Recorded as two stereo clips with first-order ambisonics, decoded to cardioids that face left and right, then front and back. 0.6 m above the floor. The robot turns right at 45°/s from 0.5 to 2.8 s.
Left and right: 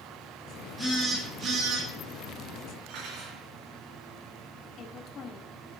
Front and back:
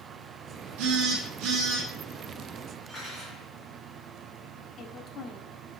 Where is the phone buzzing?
Straight behind, 4.5 m; by 1.9 s 135° right, 4.5 m.